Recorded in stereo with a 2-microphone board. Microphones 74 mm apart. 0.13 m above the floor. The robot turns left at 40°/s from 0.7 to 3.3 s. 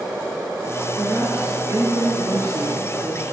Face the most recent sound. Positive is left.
turn(degrees=-110)